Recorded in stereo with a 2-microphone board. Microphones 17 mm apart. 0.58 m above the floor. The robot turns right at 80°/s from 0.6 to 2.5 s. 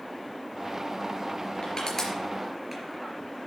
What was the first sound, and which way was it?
Crushing, 55° left (ahead or behind).